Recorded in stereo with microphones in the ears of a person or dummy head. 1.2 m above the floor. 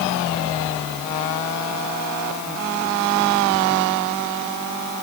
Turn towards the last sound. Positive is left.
No sound to turn to.